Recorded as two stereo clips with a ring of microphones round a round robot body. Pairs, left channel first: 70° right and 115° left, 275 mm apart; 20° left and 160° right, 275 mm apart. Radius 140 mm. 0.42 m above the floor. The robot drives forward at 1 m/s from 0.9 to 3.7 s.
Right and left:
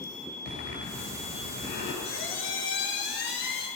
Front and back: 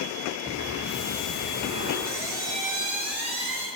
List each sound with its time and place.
0.5 s breathing: 90° right, 9 m; by 1.9 s 95° right, 9.5 m
2.0 s a squeak: 110° right, 5.5 m; by 3.7 s 125° right, 6.5 m